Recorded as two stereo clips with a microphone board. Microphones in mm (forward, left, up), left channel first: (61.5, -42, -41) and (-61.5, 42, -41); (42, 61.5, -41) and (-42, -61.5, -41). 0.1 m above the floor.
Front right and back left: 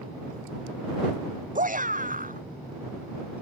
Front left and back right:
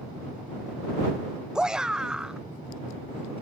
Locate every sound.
1.6 s a shout: 150° left